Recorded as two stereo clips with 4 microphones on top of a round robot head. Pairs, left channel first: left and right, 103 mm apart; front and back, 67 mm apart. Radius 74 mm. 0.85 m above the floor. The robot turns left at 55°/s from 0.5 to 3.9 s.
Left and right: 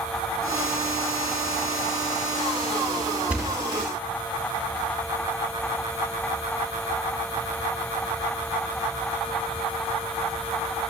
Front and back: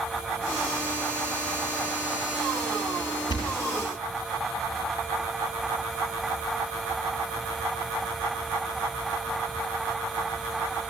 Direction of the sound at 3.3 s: 10° right.